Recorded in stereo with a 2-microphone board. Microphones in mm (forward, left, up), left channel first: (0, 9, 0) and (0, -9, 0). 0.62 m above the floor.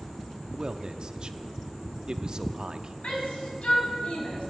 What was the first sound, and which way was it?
A man speaking, 40° right (ahead or behind).